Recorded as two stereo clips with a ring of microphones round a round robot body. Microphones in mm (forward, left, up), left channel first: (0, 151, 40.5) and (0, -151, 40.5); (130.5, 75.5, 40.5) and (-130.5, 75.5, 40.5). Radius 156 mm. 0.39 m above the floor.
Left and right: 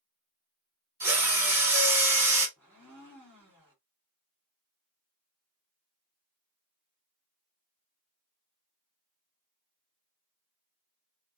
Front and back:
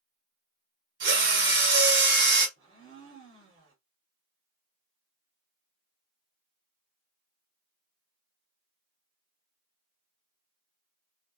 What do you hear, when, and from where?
1.0 s a drill: 165° right, 1.4 m
2.6 s a blender: 170° right, 1.7 m